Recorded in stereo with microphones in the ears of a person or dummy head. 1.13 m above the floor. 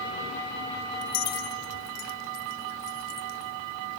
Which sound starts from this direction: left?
Keys jangling, at 1.0 s.